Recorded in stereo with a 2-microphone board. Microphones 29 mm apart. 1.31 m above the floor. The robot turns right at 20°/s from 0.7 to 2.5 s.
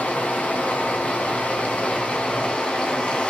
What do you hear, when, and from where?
0.0 s running water: 90° left, 2.5 m; by 3.3 s 125° left, 2.5 m